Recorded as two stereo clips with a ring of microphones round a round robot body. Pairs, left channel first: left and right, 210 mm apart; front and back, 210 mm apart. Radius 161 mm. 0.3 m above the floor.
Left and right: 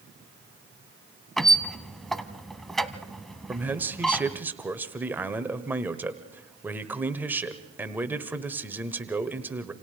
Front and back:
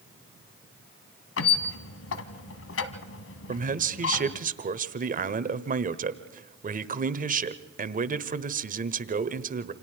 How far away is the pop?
No pop in this recording.